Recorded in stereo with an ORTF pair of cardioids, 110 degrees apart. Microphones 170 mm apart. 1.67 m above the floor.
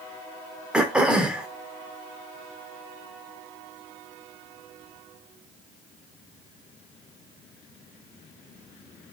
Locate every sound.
0.7 s throat clearing: 5° right, 0.7 m